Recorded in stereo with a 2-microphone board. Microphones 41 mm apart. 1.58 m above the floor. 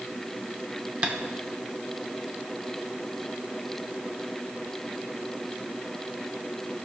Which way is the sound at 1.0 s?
20° right (ahead or behind).